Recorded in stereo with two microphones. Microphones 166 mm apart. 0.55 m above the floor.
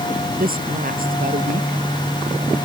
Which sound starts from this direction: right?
A woman speaking, at 0.4 s.